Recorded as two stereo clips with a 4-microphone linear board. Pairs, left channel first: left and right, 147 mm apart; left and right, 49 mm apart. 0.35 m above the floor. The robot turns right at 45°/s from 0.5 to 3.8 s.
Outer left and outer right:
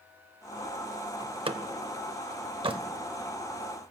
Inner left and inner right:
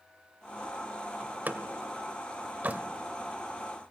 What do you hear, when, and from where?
1.2 s a door slam: 35° right (ahead or behind), 0.7 m